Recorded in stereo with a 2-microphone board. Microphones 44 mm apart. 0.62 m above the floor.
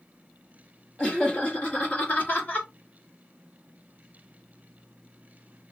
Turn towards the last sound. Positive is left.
turn(degrees=45)  # may be behind; listen again after turning